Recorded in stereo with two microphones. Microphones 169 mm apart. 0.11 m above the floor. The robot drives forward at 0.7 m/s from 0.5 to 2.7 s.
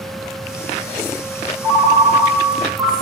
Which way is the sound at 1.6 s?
15° right (ahead or behind).